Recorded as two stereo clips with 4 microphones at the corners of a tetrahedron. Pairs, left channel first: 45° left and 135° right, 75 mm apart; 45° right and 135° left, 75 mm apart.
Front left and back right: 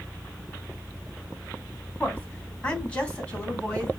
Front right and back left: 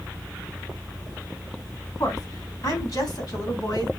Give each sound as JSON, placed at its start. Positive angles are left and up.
{"t": 2.0, "sound": "a woman speaking", "azimuth_deg": -25, "distance_m": 2.5}